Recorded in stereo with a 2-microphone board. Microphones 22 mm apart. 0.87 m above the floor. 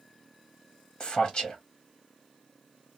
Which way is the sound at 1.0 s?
35° left (ahead or behind).